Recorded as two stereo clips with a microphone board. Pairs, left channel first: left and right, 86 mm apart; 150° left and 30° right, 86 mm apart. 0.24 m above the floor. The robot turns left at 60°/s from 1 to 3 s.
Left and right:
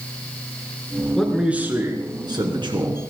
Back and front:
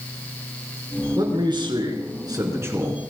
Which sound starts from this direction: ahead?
A man speaking, at 1.2 s.